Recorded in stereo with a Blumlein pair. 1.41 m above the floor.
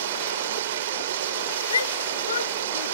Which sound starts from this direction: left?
A shout, at 1.7 s.